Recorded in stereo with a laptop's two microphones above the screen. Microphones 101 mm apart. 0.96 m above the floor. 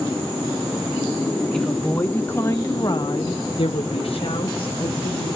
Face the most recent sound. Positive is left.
turn(degrees=55)  # may be behind; listen again after turning